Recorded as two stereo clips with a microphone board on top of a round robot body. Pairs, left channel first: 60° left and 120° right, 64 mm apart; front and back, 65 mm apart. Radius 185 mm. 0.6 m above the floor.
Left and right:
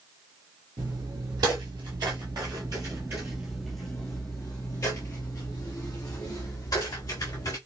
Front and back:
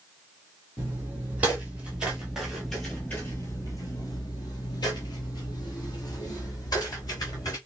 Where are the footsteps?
115° right, 1.5 m; by 7.6 s 35° left, 2 m.